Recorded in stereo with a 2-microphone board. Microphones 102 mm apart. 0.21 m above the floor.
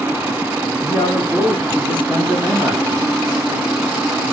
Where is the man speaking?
30° left (ahead or behind), 1.9 m; by 3.1 s 10° right (ahead or behind), 1.3 m.